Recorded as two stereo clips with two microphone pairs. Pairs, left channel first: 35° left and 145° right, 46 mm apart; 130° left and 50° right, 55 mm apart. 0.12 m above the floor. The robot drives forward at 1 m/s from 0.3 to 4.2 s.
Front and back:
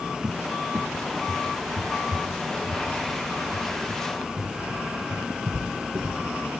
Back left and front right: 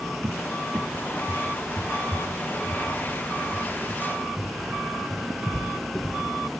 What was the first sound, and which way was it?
A cupboard door, 85° right.